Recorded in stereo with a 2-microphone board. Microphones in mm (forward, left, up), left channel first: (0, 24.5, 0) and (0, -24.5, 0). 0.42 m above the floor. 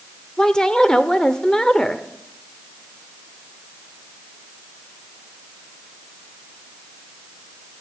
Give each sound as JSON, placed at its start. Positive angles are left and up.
{"t": 0.4, "sound": "a woman speaking", "side_deg": 15, "distance_m": 0.9}